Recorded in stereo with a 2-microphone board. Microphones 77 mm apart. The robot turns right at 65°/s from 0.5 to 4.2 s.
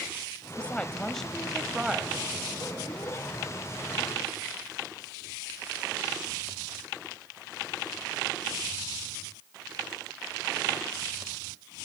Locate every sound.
0.6 s a woman speaking: 15° left (ahead or behind), 1.3 m; by 2.3 s 15° right (ahead or behind), 1.3 m